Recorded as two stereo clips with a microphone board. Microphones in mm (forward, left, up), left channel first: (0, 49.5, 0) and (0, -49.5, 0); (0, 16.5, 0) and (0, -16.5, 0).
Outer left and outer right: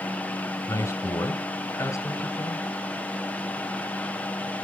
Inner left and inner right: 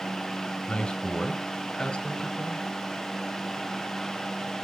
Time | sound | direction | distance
0.7 | a man speaking | 30° left (ahead or behind) | 1.8 m